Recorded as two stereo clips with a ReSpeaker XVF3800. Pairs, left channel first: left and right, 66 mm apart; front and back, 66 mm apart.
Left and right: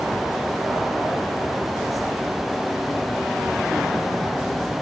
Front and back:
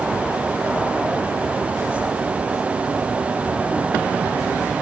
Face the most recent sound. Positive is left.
No sound to turn to.